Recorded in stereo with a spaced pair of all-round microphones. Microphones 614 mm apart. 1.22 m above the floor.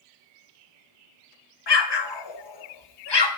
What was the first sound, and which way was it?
An explosion, 45° left (ahead or behind).